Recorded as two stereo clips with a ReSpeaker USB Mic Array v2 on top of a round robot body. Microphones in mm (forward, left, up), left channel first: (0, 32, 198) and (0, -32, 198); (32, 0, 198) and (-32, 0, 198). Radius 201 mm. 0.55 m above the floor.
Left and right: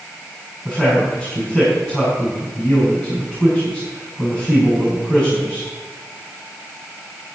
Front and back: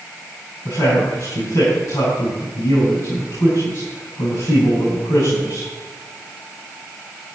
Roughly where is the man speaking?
Ahead left.